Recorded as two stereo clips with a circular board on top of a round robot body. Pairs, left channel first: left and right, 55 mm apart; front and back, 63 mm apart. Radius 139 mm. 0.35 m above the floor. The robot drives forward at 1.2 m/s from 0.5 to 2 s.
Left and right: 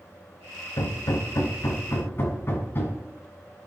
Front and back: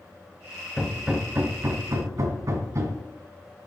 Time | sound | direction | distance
0.8 | hammering | 85° left | 1.3 m